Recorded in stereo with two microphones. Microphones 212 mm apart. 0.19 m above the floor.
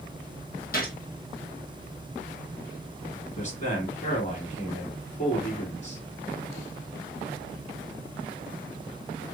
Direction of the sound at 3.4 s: 35° left (ahead or behind).